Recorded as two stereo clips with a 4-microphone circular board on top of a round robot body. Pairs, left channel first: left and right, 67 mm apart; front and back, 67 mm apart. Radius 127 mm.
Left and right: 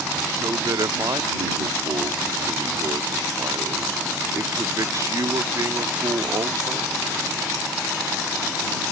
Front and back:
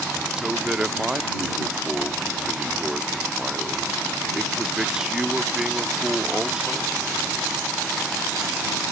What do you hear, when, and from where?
0.4 s a man speaking: 100° right